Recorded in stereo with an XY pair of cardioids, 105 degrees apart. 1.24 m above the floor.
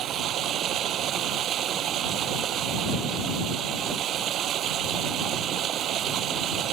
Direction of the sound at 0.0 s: 65° right.